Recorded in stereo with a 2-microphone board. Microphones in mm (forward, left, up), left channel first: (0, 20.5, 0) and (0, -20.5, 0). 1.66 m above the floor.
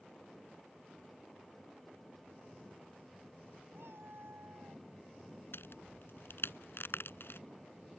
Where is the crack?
70° left (ahead or behind).